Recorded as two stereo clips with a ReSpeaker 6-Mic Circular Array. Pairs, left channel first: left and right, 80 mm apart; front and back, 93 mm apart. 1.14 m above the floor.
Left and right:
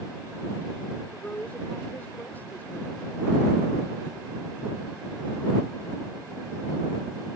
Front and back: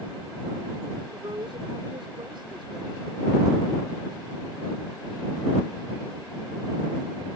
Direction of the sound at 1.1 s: 155° left.